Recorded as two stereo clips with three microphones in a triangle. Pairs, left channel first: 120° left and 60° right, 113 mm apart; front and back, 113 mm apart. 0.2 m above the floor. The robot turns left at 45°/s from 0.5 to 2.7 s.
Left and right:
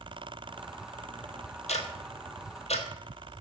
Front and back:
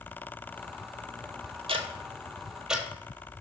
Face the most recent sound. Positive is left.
turn(degrees=95)